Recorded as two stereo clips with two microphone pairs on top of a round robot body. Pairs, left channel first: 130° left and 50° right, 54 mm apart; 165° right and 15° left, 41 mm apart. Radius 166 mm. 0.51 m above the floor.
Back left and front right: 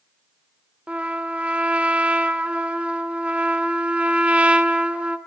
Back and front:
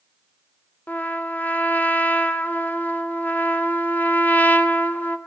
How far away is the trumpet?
About 2.5 m.